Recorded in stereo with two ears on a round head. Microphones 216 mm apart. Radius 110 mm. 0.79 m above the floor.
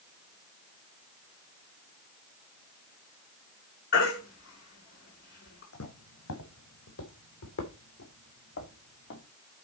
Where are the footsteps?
75° left (ahead or behind), 3 m; by 9.2 s 50° left (ahead or behind), 3.5 m.